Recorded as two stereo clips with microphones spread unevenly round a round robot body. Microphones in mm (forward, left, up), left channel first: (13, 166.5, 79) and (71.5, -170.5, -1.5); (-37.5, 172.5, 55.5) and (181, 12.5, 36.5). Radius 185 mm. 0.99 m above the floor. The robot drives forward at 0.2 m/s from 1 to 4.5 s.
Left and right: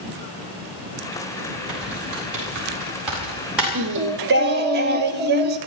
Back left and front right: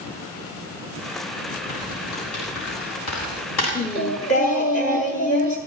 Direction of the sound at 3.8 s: 145° right.